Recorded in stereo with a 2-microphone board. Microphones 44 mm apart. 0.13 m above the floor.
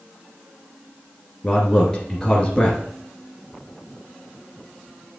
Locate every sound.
1.4 s a man speaking: 20° left (ahead or behind), 2.5 m